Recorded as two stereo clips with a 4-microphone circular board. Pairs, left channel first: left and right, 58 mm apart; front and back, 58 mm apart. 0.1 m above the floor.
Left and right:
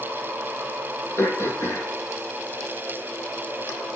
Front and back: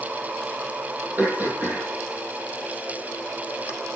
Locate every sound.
1.2 s throat clearing: 130° left, 3.5 m